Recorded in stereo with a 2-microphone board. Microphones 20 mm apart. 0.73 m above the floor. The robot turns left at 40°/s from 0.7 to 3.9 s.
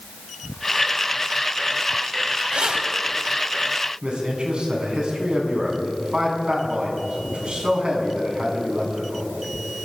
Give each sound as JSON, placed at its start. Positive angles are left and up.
{"t": 2.5, "sound": "keys jangling", "side_deg": -80, "distance_m": 3.0}
{"t": 4.0, "sound": "a man speaking", "side_deg": -65, "distance_m": 6.5}